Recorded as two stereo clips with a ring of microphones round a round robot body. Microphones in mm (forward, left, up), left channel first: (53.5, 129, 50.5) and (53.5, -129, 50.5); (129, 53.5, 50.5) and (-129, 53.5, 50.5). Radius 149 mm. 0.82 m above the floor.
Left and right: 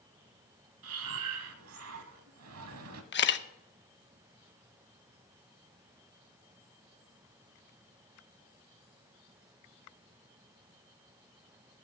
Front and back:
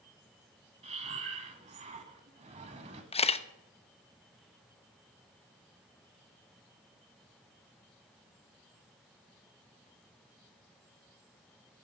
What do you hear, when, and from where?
0.8 s breathing: 115° right, 0.9 m
3.1 s a camera shutter: 60° left, 0.9 m